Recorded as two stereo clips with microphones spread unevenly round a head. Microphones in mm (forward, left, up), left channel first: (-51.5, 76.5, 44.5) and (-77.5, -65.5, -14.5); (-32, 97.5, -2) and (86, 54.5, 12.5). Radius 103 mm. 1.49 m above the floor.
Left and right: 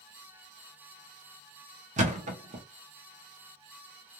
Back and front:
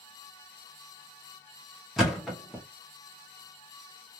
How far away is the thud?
About 0.7 m.